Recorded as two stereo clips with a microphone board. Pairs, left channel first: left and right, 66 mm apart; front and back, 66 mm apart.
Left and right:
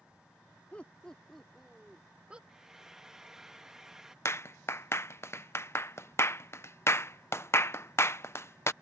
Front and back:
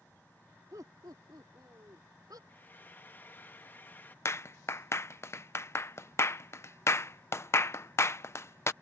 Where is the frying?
15° right.